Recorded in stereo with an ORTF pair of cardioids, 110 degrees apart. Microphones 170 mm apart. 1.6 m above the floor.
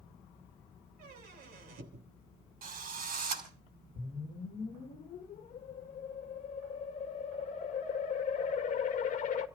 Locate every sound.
1.0 s a squeak: 70° right, 3 m
2.6 s a drill: 60° right, 5.5 m
4.0 s a whoosh: 50° left, 1.9 m